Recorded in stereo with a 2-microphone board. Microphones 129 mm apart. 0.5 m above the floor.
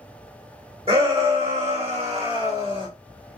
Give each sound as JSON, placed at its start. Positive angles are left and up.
{"t": 0.9, "sound": "a shout", "side_deg": -50, "distance_m": 1.7}